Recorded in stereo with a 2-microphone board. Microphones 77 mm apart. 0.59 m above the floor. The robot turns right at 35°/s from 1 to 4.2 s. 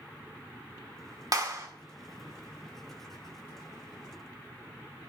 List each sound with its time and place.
1.3 s a clap: 50° right (ahead or behind), 1.4 m; by 1.7 s 40° right (ahead or behind), 1.4 m